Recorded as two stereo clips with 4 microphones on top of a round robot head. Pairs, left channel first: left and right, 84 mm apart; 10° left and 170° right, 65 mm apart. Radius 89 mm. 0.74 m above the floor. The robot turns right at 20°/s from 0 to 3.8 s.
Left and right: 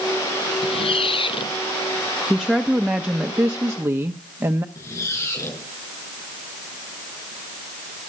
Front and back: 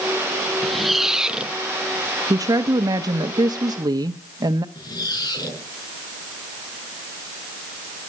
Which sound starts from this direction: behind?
A woman speaking, at 2.3 s.